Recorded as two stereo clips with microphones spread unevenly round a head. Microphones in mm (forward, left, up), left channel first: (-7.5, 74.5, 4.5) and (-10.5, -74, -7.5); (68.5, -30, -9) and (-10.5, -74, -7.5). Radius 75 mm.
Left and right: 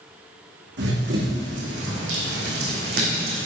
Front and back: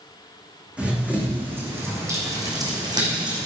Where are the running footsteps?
75° right, 4.5 m; by 3.5 s 120° right, 4 m.